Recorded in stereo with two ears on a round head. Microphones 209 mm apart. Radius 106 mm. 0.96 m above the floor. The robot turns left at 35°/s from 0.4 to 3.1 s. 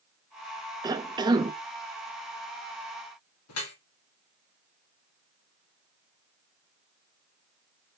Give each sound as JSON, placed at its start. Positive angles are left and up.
{"t": 0.8, "sound": "a cough", "side_deg": -15, "distance_m": 0.7}
{"t": 3.5, "sound": "dripping", "side_deg": 75, "distance_m": 2.5}